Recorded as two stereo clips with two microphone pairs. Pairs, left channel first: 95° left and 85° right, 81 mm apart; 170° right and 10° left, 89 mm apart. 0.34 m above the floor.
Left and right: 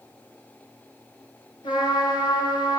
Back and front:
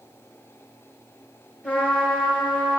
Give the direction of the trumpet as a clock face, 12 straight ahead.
8 o'clock.